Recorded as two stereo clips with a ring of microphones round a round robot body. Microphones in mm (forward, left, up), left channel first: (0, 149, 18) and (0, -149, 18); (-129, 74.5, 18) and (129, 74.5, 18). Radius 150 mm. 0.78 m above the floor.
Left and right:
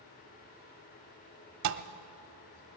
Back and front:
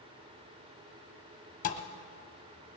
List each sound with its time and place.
1.6 s a thud: 115° right, 0.6 m